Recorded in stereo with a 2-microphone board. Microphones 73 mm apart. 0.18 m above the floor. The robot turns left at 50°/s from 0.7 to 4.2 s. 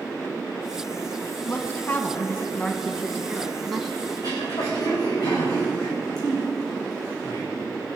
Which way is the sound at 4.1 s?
55° left (ahead or behind).